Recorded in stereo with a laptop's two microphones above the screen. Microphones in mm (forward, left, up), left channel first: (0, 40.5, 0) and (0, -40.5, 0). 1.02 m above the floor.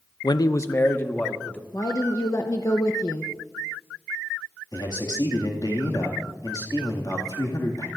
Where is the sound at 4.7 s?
50° left (ahead or behind), 2 m.